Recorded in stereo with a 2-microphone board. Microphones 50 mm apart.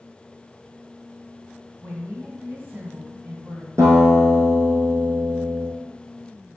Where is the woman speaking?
45° right (ahead or behind), 2 m.